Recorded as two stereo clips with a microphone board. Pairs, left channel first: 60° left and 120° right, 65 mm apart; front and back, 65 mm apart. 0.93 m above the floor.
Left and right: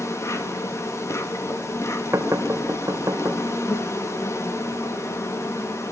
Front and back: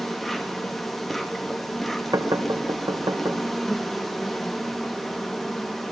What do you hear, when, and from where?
0.0 s an insect: 90° left, 2.5 m
2.1 s knocking: 165° right, 4 m